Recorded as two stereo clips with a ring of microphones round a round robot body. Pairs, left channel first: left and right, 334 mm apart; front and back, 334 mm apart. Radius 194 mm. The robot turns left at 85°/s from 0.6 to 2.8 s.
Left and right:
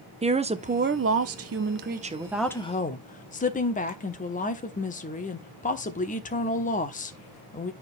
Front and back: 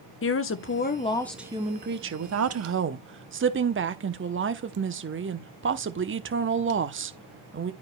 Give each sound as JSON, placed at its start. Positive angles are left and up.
{"t": 0.2, "sound": "a woman speaking", "azimuth_deg": -25, "distance_m": 1.0}